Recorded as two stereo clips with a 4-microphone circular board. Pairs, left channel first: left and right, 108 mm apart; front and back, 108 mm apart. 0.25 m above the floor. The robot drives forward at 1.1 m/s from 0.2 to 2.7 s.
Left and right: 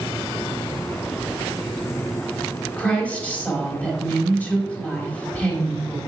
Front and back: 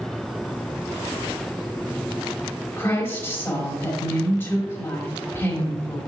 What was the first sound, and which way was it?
A woman speaking, 35° left.